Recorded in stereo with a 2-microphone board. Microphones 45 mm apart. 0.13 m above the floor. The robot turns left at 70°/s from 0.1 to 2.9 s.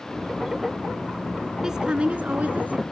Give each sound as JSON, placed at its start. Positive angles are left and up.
{"t": 1.6, "sound": "a woman speaking", "azimuth_deg": -20, "distance_m": 1.8}